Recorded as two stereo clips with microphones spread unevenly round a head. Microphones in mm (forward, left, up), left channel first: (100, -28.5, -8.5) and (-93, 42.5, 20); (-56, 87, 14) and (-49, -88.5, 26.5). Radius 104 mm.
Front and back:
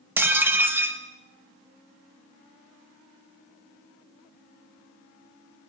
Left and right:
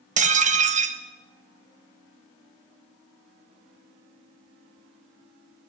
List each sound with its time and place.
0.2 s dishes clattering: 125° right, 1.3 m